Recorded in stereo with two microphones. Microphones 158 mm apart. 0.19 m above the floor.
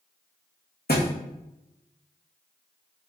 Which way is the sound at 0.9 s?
85° left.